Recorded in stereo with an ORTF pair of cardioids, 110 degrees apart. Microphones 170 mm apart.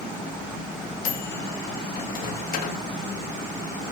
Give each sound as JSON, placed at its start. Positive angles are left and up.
{"t": 1.1, "sound": "a microwave", "azimuth_deg": 55, "distance_m": 2.5}